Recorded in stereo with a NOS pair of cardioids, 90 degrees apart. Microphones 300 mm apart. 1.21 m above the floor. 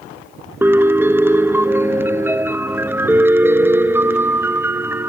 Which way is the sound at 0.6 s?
10° right.